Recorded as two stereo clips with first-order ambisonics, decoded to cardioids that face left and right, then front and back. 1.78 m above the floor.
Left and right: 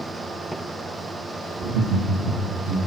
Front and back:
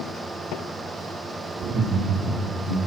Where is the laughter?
130° right, 1.7 m; by 2.8 s 100° right, 3 m.